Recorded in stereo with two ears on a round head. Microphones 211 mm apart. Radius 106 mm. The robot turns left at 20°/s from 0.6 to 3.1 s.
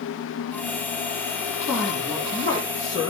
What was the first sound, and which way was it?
A woman speaking, 5° right (ahead or behind).